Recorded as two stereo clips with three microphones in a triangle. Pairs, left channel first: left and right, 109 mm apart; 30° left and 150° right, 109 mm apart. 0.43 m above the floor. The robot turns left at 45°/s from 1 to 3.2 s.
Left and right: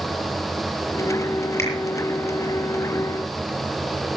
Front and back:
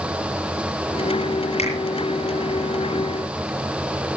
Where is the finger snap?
25° left, 10 m; by 1.7 s 15° left, 10 m.